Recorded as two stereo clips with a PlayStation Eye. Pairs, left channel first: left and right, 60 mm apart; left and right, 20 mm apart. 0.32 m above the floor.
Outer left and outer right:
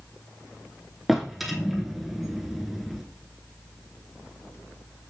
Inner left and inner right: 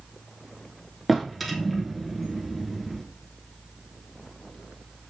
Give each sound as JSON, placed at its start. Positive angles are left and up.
{"t": 1.1, "sound": "a drawer", "side_deg": -5, "distance_m": 1.0}